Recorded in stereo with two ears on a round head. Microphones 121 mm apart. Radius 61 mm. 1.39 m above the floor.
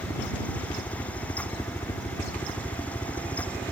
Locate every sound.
0.0 s a helicopter: 25° left (ahead or behind)